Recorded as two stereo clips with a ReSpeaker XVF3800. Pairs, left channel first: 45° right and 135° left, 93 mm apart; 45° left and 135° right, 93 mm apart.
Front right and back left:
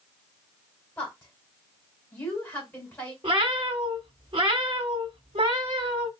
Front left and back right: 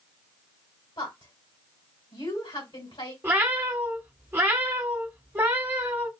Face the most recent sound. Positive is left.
turn(degrees=160)